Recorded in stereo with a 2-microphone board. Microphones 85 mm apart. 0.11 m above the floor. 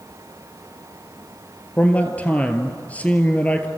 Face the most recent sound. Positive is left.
turn(degrees=15)  # may be behind; listen again after turning